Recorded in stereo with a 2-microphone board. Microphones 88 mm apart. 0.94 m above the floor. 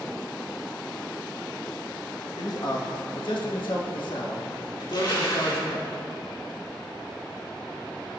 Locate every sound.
2.4 s a man speaking: 50° left (ahead or behind), 1.3 m; by 5.8 s 55° left (ahead or behind), 2.5 m
4.8 s crushing: 60° left (ahead or behind), 3 m